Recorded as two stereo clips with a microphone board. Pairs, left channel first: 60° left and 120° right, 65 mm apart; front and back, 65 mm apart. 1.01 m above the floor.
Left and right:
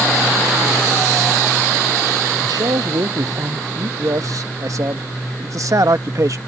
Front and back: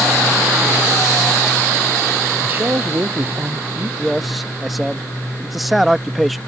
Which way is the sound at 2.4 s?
120° right.